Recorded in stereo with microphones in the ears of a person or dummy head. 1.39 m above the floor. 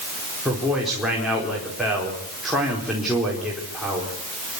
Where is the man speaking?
Centre (ahead or behind), 4.5 m.